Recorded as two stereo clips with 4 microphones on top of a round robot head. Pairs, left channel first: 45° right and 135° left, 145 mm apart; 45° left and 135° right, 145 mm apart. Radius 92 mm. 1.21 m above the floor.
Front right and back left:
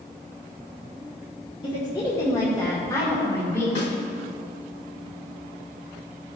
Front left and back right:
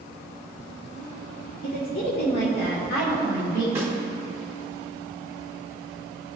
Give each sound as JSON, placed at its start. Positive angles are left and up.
{"t": 1.6, "sound": "a woman speaking", "azimuth_deg": 15, "distance_m": 1.5}
{"t": 3.8, "sound": "a snare drum", "azimuth_deg": -65, "distance_m": 2.5}